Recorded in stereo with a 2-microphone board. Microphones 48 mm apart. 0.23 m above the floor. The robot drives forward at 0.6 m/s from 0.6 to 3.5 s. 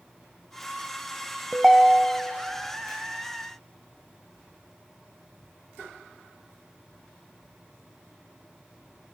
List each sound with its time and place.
1.5 s a ringtone: 10° right (ahead or behind), 0.6 m